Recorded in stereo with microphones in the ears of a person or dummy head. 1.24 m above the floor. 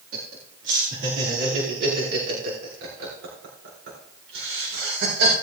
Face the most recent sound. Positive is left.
turn(degrees=-85)